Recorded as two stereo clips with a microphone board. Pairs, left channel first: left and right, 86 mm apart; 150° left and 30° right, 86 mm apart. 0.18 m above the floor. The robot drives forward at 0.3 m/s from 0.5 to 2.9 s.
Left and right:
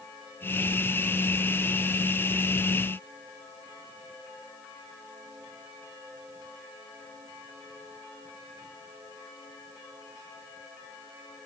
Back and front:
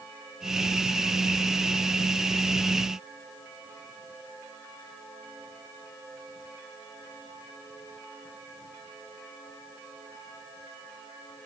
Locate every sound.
Only background noise.